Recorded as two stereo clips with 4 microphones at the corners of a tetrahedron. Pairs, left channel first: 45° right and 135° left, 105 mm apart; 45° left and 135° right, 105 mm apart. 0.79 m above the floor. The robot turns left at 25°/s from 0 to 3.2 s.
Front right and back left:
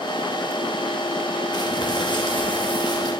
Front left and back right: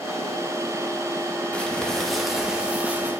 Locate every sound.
1.5 s crumpling: 30° right, 1.2 m; by 3.1 s 70° right, 1.2 m